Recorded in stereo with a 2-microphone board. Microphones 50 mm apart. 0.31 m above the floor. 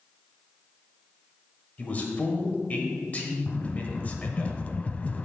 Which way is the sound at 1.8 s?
30° left (ahead or behind).